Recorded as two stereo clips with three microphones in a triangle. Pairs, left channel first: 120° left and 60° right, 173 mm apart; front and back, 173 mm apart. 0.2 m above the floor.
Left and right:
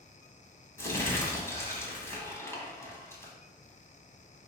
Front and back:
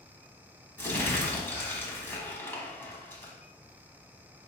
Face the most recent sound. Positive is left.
turn(degrees=65)